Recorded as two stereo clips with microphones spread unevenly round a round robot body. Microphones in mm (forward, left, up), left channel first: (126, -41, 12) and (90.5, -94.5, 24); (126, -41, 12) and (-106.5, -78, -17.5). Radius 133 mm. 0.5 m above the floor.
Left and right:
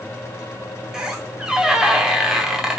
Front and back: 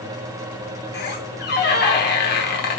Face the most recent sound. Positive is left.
turn(degrees=-35)